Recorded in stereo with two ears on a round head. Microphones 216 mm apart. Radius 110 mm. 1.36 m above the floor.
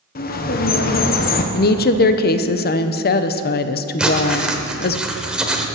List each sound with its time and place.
0.1 s a bird: 40° left (ahead or behind), 0.9 m
1.5 s a woman speaking: 45° left (ahead or behind), 0.7 m
4.0 s writing: 5° right (ahead or behind), 1.1 m